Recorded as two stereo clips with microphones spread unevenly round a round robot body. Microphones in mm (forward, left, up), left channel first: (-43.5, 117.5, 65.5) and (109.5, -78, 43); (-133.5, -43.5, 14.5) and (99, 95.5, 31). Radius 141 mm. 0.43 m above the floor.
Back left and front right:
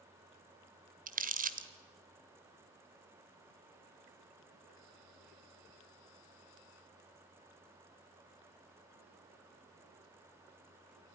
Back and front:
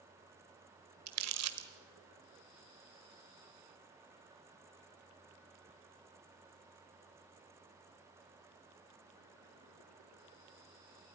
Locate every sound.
1.1 s crumpling: straight ahead, 1.6 m